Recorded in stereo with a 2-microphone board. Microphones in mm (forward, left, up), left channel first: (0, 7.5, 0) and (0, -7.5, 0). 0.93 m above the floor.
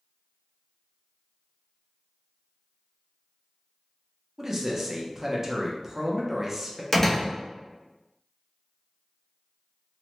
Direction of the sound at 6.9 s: 25° left (ahead or behind).